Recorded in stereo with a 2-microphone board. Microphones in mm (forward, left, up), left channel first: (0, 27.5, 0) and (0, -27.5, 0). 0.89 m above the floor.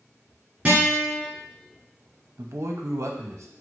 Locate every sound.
0.7 s a guitar: 25° right (ahead or behind), 2.0 m
2.4 s a man speaking: 60° right (ahead or behind), 0.6 m